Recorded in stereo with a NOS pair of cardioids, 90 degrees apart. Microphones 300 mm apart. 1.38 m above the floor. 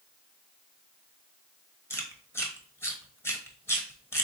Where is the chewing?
10° left, 1.2 m.